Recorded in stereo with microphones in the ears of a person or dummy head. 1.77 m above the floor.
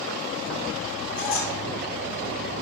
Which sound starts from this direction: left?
A squeak, at 1.2 s.